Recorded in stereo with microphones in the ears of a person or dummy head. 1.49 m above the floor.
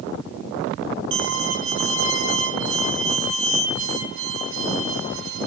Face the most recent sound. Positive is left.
turn(degrees=-70)  # may be behind; listen again after turning